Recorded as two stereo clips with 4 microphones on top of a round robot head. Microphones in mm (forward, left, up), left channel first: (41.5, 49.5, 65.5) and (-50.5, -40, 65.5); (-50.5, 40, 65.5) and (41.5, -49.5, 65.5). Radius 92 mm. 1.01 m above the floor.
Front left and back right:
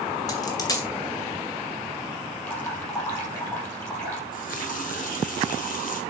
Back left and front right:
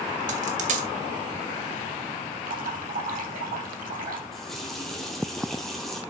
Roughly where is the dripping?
Ahead right.